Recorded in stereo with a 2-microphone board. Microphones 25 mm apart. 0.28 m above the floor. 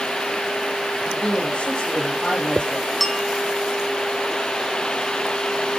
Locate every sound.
1.1 s a man speaking: 40° left (ahead or behind), 9 m
3.0 s a bell: centre (ahead or behind), 2.5 m